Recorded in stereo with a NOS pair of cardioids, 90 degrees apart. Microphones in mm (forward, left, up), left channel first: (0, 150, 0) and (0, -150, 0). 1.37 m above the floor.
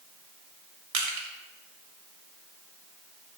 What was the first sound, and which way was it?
Crushing, 65° right.